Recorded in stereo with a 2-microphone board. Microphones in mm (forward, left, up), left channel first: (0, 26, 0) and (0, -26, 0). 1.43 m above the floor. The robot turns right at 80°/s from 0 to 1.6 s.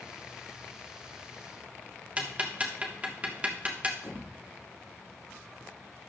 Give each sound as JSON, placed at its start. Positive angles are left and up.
{"t": 2.2, "sound": "ticking", "side_deg": -25, "distance_m": 1.2}
{"t": 4.0, "sound": "a thud", "side_deg": 40, "distance_m": 2.5}